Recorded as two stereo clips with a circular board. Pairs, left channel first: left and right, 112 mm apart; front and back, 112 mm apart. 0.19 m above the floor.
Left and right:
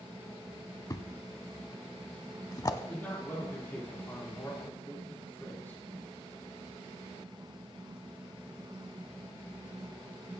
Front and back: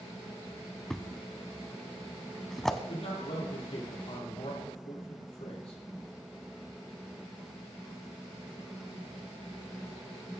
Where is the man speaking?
20° left, 4.5 m.